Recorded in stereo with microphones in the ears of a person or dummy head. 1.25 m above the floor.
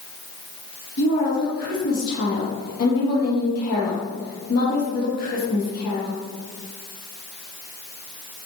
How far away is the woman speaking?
About 1.7 m.